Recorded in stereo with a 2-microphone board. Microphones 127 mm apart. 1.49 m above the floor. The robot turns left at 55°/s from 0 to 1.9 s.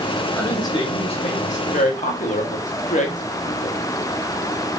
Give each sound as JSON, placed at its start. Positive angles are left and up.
{"t": 0.4, "sound": "a woman speaking", "azimuth_deg": 165, "distance_m": 1.3}